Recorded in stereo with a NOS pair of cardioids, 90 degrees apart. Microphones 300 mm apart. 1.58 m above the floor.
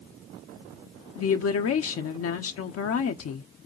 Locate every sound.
1.1 s a woman speaking: 50° left, 0.8 m